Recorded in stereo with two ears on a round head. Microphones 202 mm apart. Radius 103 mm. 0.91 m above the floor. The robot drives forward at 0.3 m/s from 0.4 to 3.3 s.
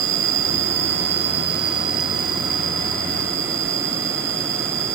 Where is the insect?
60° right (ahead or behind), 1.1 m; by 5.0 s 35° right (ahead or behind), 1.7 m.